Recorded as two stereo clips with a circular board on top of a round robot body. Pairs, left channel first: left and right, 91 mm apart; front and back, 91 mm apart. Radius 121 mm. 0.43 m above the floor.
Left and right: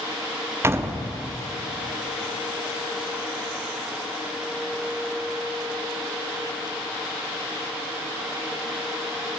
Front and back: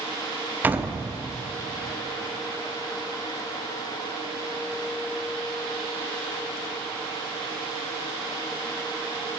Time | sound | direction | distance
0.6 | a door slam | 125° right | 0.8 m